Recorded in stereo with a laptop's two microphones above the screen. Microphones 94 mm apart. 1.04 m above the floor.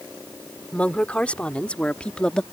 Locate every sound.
0.7 s a woman speaking: 15° left (ahead or behind); by 2.4 s 10° left (ahead or behind)